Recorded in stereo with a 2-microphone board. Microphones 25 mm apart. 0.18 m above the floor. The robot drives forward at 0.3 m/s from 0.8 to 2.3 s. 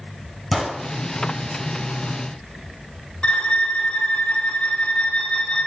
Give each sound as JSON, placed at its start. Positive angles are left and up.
{"t": 0.5, "sound": "a gunshot", "side_deg": -5, "distance_m": 1.8}
{"t": 3.2, "sound": "a violin", "side_deg": 50, "distance_m": 0.8}